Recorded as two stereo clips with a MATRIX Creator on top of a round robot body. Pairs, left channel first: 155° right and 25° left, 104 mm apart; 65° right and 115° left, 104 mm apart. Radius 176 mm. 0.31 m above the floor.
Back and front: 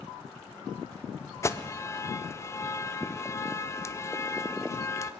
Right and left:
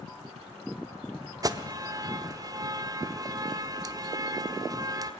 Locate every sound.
1.4 s an alarm: 150° left, 1.3 m